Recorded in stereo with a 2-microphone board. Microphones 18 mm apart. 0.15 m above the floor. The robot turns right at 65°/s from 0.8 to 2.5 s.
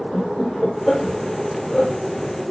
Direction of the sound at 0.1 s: 25° left (ahead or behind).